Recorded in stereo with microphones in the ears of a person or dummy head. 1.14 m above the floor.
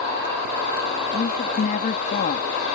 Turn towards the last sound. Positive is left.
turn(degrees=45)  # may be behind; listen again after turning